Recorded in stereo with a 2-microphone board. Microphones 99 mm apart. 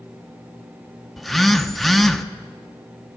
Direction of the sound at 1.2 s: Centre (ahead or behind).